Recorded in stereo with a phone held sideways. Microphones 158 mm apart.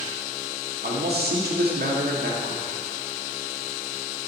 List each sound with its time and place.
0.8 s a man speaking: 90° right, 1.8 m